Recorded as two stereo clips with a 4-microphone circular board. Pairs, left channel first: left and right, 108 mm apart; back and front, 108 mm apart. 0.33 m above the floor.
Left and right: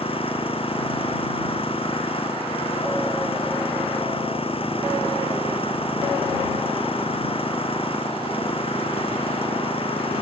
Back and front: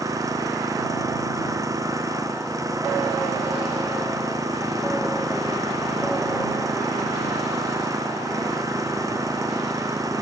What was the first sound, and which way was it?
An engine running, 60° left.